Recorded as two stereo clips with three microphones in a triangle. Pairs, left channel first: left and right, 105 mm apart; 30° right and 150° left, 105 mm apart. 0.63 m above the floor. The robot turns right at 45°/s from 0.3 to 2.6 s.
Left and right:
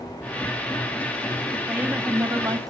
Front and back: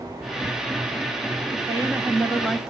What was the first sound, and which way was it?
A woman speaking, 170° right.